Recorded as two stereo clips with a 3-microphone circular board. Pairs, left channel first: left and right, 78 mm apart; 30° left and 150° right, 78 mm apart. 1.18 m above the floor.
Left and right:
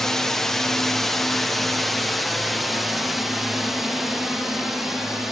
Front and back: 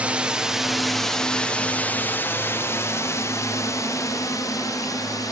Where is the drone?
165° left; by 5.3 s 5° right.